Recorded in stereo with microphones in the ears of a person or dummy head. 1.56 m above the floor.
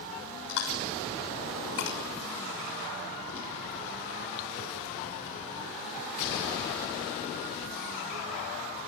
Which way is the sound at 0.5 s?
75° left (ahead or behind).